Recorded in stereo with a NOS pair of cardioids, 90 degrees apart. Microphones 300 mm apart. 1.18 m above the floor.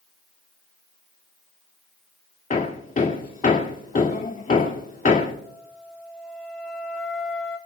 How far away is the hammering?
About 2 m.